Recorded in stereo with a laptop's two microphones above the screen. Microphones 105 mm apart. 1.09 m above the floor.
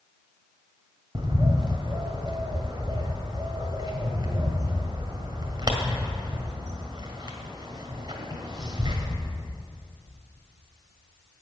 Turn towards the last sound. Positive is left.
turn(degrees=-45)  # may be behind; listen again after turning